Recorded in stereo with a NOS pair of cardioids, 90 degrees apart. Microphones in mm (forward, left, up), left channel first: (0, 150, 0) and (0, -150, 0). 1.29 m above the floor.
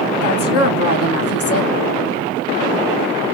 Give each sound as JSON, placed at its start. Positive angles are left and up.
{"t": 0.2, "sound": "a woman speaking", "azimuth_deg": 50, "distance_m": 1.4}